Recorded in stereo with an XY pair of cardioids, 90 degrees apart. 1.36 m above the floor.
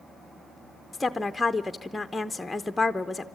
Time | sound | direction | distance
0.9 | a woman speaking | 15° left | 0.7 m